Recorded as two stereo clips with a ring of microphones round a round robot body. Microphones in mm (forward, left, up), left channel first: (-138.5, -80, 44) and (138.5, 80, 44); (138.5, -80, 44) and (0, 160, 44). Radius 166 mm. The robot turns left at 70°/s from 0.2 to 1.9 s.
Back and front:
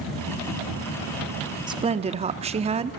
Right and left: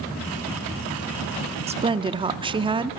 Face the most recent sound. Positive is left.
turn(degrees=75)